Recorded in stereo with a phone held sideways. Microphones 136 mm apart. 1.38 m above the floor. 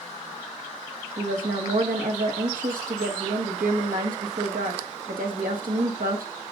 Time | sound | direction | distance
1.2 | a woman speaking | 90° right | 1.8 m